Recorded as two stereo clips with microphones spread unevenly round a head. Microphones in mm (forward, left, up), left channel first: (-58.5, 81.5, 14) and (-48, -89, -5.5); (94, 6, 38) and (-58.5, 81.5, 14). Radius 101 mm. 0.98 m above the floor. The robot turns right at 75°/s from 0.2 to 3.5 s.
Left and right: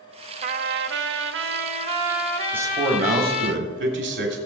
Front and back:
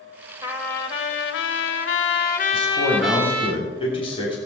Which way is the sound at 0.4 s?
135° right.